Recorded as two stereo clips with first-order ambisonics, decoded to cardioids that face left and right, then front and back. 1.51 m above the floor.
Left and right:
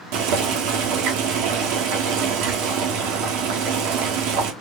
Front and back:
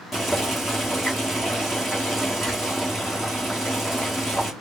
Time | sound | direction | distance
0.1 | boiling | 90° right | 1.8 m